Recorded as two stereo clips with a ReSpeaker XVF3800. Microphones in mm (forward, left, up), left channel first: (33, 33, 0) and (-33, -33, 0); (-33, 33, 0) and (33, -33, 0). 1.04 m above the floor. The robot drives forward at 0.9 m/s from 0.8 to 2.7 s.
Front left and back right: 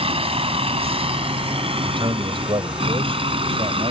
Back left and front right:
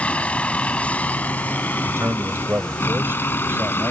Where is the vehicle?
150° right; by 3.9 s 155° right.